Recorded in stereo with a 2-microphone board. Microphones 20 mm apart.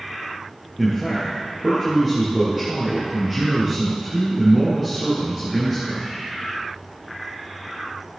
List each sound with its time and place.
0.8 s a man speaking: 10° right (ahead or behind), 3.5 m